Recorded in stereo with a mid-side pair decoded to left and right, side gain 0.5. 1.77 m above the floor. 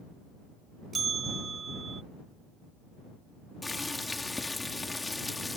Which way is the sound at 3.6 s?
20° left.